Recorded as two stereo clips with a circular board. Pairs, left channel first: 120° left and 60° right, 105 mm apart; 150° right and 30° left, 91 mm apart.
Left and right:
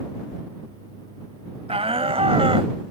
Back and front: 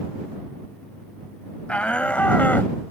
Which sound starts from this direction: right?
A shout, at 1.7 s.